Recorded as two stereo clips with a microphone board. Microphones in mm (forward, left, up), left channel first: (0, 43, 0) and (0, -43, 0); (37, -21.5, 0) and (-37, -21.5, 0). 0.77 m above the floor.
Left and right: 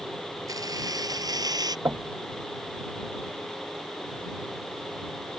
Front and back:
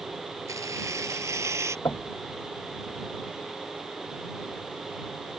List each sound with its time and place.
0.5 s keys jangling: 135° right; by 1.8 s 130° right
1.9 s knocking: 35° right